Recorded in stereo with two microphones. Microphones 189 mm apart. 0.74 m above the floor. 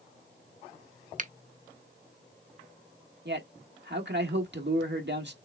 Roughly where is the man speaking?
Right.